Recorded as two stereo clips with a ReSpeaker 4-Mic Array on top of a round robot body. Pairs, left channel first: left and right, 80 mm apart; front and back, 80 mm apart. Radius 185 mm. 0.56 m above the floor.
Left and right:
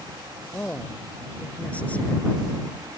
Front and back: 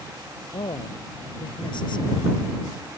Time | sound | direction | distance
0.5 | a man speaking | 15° left | ?